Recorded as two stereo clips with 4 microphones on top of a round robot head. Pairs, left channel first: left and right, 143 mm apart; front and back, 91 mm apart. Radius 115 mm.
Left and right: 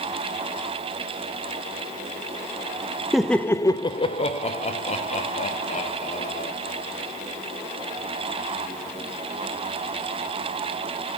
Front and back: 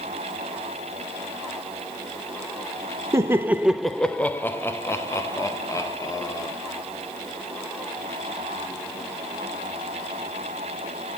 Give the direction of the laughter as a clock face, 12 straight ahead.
6 o'clock.